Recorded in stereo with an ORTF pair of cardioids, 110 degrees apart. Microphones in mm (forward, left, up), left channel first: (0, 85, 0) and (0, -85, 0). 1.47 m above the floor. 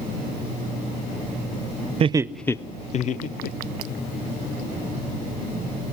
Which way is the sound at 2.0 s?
35° right.